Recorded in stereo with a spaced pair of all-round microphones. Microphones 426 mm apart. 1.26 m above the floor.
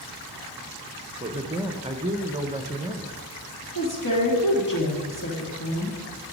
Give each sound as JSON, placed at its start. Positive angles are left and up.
{"t": 1.2, "sound": "a man speaking", "side_deg": -15, "distance_m": 0.7}
{"t": 3.8, "sound": "a woman speaking", "side_deg": 45, "distance_m": 2.0}